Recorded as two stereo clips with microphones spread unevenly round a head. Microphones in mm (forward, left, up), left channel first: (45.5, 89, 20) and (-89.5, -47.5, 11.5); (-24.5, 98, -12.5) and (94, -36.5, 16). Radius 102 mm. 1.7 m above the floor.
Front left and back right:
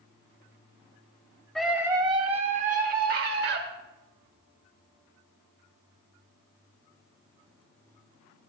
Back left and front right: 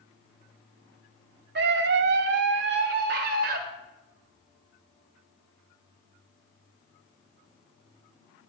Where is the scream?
40° right, 0.9 m; by 3.6 s 90° right, 1.8 m.